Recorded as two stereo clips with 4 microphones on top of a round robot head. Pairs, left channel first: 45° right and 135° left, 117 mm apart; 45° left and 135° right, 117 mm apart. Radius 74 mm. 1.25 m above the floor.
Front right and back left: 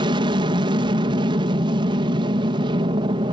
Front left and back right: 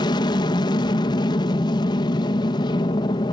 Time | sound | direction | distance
0.0 | an aircraft | 90° left | ?